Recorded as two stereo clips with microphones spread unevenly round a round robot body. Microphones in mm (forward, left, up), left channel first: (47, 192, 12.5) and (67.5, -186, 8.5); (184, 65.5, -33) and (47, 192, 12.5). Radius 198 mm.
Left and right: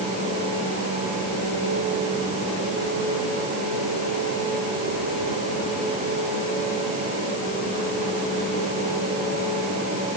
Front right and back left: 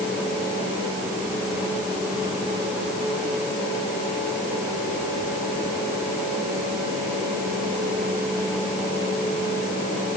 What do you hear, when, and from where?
Only background noise.